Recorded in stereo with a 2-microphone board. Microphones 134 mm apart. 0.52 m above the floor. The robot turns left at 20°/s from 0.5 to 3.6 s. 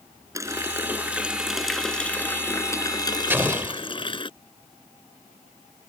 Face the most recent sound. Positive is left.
turn(degrees=-20)  # may be behind; listen again after turning